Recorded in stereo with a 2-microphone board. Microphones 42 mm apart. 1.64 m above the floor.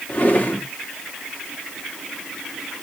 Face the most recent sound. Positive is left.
turn(degrees=40)  # may be behind; listen again after turning